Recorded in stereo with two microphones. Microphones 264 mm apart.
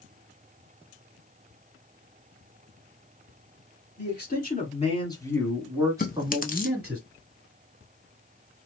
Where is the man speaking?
45° left (ahead or behind), 1.6 m; by 7.0 s 40° right (ahead or behind), 1.5 m.